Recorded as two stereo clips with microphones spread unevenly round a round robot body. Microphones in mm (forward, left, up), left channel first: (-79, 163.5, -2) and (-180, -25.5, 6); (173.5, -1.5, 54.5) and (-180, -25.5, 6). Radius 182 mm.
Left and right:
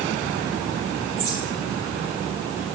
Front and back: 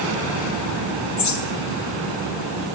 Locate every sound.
1.2 s a bird: 20° right, 2 m